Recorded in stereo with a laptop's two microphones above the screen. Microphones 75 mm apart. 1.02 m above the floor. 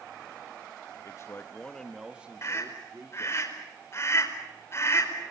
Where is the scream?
35° left (ahead or behind), 4.5 m.